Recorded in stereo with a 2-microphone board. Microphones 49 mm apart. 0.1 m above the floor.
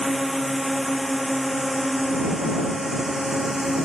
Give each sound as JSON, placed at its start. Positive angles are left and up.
{"t": 0.0, "sound": "a drone", "side_deg": 0}